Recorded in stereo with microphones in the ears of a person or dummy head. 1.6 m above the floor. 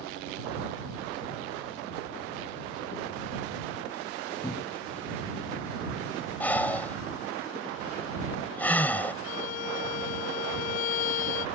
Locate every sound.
4.4 s a cupboard door: 25° left (ahead or behind)
6.4 s breathing: 15° left (ahead or behind)
9.2 s a violin: 50° left (ahead or behind)